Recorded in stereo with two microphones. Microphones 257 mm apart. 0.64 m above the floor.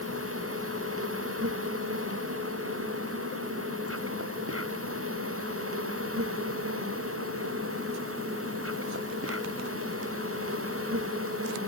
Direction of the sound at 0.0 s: 60° right (ahead or behind).